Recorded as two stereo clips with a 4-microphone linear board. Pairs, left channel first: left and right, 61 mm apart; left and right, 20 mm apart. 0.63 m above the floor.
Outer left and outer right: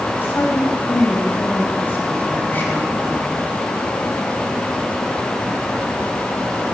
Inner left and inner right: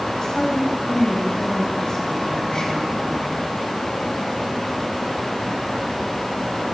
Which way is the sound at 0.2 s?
40° left (ahead or behind).